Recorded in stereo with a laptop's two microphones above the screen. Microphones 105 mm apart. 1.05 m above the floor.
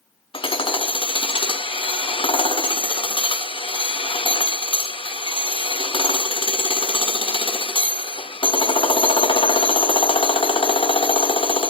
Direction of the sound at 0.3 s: 55° left (ahead or behind).